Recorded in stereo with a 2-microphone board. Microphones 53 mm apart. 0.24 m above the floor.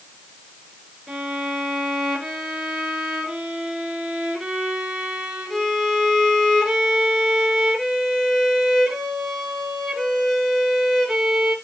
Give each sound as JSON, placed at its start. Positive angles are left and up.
{"t": 1.1, "sound": "a violin", "side_deg": 0, "distance_m": 3.5}